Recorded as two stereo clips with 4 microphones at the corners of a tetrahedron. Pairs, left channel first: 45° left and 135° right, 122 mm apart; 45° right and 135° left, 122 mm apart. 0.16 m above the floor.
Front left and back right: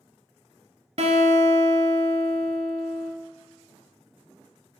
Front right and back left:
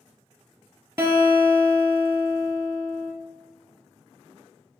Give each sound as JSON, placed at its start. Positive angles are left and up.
{"t": 1.0, "sound": "a guitar", "azimuth_deg": -155, "distance_m": 0.8}